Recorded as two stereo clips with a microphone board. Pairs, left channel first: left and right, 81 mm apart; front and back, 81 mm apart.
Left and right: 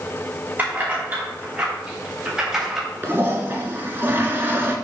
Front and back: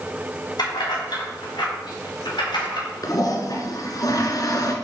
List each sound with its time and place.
0.6 s keys jangling: 25° right, 5.5 m; by 2.9 s 5° right, 4 m
3.0 s a toilet flushing: 30° right, 2 m